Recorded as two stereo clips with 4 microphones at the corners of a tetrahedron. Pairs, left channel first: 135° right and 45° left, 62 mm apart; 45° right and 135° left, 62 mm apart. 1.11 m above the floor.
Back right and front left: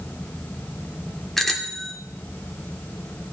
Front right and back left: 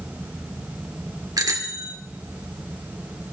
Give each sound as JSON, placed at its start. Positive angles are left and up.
{"t": 1.4, "sound": "a bicycle bell", "azimuth_deg": 140, "distance_m": 2.0}